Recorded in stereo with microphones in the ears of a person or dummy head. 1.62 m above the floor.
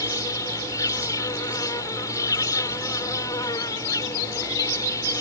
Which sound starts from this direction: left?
An insect, at 0.0 s.